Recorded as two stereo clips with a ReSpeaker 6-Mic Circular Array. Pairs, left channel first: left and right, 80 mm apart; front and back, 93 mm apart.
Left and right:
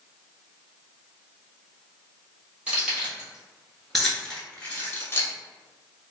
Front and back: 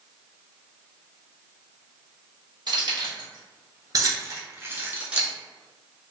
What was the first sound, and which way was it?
Keys jangling, 160° right.